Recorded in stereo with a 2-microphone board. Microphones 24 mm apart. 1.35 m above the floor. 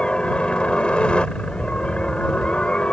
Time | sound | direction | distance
0.0 | a helicopter | 50° left (ahead or behind) | ?